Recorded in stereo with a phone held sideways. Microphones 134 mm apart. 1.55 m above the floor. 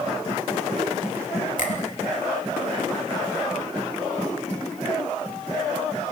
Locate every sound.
1.6 s a finger snap: 75° left (ahead or behind), 3 m